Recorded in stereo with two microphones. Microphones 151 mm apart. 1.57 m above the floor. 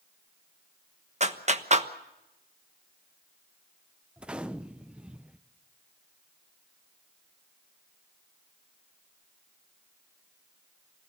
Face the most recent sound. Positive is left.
turn(degrees=-5)  # may be behind; listen again after turning